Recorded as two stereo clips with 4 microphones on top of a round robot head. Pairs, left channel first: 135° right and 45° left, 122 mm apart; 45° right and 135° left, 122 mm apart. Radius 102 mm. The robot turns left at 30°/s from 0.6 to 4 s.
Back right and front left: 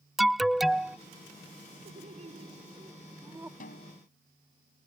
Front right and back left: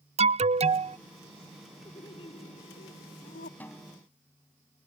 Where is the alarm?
135° left; by 1.0 s 125° left.